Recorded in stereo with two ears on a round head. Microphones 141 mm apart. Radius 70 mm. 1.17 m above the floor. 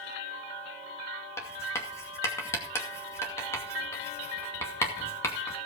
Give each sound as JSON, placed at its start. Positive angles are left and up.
{"t": 1.4, "sound": "writing", "side_deg": 15, "distance_m": 2.0}